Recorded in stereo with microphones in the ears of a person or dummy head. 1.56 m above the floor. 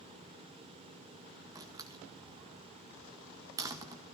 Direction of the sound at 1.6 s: 15° right (ahead or behind).